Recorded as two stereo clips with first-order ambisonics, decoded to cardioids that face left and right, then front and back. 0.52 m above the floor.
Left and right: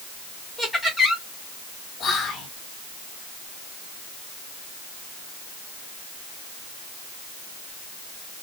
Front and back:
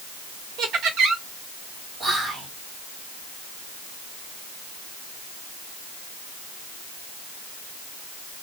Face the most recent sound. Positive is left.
turn(degrees=125)